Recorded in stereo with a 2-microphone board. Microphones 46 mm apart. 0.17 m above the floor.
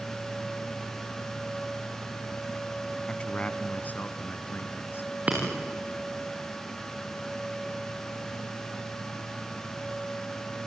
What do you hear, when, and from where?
3.1 s a man speaking: 25° left (ahead or behind), 1.3 m; by 5.2 s 55° left (ahead or behind), 2.5 m
5.3 s breaking glass: 35° right (ahead or behind), 7 m